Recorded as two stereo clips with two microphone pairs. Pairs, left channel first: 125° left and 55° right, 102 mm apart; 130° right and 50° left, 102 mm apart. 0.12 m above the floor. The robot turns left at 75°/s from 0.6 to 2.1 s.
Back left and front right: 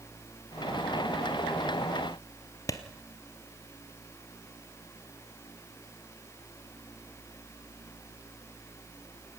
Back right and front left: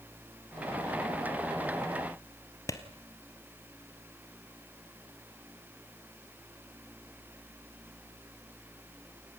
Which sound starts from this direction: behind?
A clap, at 2.7 s.